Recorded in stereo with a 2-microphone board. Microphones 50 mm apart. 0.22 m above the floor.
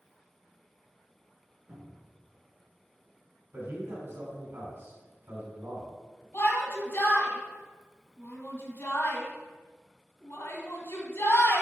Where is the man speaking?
55° right (ahead or behind), 2.5 m.